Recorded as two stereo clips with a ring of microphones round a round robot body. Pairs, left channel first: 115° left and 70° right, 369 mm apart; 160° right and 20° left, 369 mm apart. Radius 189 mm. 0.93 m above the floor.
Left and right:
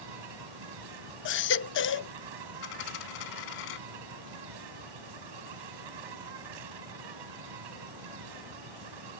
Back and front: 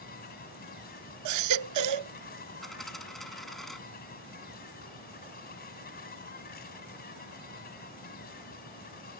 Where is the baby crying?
60° left.